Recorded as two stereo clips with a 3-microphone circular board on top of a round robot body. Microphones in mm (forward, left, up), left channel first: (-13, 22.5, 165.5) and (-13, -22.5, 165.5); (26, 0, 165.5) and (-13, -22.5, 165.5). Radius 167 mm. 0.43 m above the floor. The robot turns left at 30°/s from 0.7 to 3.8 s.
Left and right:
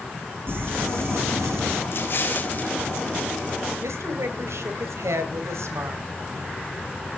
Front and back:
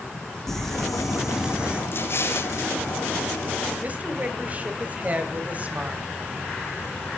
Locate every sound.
0.5 s crumpling: 55° right, 2.5 m; by 1.8 s 85° right, 2.5 m
1.9 s an explosion: 60° left, 2 m; by 2.7 s 35° left, 2 m
3.8 s a woman speaking: 95° right, 2.5 m